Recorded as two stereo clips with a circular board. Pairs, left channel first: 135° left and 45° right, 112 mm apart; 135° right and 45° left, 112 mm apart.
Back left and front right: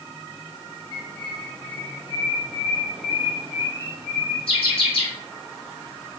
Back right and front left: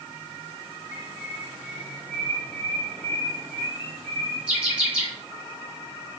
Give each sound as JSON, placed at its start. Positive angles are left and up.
{"t": 0.9, "sound": "a bird", "azimuth_deg": 125, "distance_m": 2.0}